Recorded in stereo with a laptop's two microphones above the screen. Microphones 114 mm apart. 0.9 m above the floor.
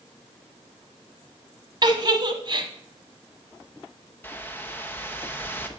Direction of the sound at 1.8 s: 40° right (ahead or behind).